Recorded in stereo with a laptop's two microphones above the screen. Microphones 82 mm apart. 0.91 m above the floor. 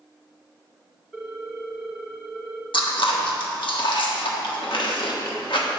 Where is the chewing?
75° left (ahead or behind), 1.3 m.